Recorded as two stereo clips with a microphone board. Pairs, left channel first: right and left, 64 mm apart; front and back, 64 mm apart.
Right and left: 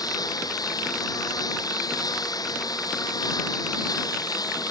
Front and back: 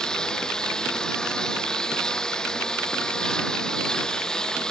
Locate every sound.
0.0 s a lawn mower: 80° right